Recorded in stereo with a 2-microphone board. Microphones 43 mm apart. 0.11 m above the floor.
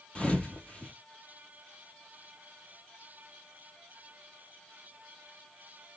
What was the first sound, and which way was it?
A thud, 25° left (ahead or behind).